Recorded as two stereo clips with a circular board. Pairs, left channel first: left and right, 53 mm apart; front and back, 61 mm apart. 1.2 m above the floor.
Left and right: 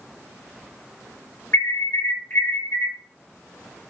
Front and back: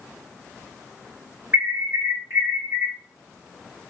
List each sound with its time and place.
1.5 s an alarm: 125° left, 3 m